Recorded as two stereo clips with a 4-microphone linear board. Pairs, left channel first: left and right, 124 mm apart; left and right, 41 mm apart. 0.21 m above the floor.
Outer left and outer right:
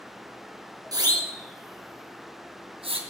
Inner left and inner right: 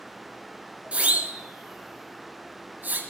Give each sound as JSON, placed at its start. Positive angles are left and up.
{"t": 0.9, "sound": "a siren", "side_deg": -30, "distance_m": 3.5}